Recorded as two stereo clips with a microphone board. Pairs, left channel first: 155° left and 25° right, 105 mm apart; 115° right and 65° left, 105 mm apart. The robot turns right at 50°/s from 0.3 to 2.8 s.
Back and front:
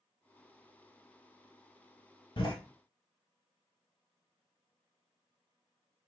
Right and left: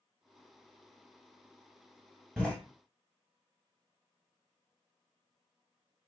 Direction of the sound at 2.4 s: 165° left.